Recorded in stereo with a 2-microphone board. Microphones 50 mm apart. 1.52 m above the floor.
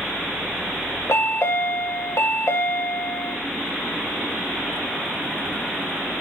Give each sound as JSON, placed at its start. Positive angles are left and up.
{"t": 1.1, "sound": "a chime", "side_deg": 65, "distance_m": 0.9}